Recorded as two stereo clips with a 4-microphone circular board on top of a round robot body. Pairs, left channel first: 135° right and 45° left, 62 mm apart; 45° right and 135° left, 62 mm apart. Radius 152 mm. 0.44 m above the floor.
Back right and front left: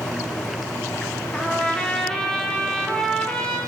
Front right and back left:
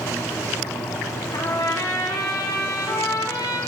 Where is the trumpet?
55° right, 1.5 m.